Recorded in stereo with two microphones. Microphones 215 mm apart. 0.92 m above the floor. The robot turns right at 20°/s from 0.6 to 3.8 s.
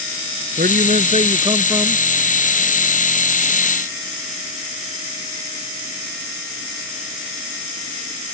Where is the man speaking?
40° right (ahead or behind); by 2.0 s 10° right (ahead or behind).